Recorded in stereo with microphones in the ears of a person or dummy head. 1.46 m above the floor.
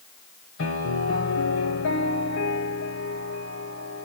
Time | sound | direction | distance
0.6 | a piano | 75° left (ahead or behind) | 3 m